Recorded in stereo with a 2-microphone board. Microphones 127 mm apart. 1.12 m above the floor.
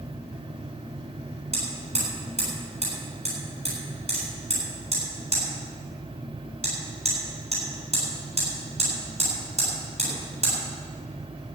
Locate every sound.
1.5 s hammering: 55° right (ahead or behind), 7.5 m